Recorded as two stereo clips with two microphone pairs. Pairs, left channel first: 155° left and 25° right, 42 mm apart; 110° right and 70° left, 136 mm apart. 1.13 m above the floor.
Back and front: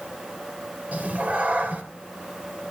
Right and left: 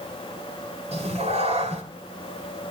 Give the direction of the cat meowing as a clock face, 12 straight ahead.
11 o'clock.